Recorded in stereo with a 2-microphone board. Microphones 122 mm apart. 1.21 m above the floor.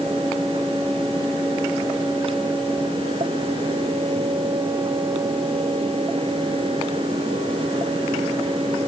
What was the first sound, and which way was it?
Only background noise.